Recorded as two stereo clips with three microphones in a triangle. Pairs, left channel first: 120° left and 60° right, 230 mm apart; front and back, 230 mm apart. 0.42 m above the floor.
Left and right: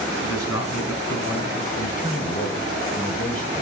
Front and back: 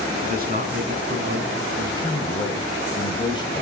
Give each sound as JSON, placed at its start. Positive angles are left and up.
{"t": 0.2, "sound": "a man speaking", "azimuth_deg": 125, "distance_m": 4.5}
{"t": 1.8, "sound": "a man speaking", "azimuth_deg": 70, "distance_m": 2.5}